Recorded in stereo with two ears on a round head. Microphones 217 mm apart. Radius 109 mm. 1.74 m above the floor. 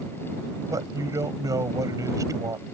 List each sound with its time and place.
0.7 s a man speaking: 15° right (ahead or behind)